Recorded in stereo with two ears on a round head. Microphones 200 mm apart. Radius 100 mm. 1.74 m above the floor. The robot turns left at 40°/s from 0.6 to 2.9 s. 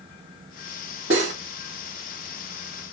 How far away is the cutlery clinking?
About 1.5 m.